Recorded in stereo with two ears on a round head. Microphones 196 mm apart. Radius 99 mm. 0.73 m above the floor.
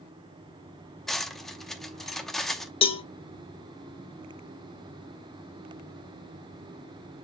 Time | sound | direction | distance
1.1 | cutlery clinking | centre (ahead or behind) | 0.6 m
2.8 | a cowbell | 25° left (ahead or behind) | 0.6 m